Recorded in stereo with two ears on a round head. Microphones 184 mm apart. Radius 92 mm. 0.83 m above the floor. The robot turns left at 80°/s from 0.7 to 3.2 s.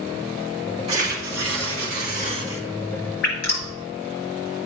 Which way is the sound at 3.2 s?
60° left (ahead or behind).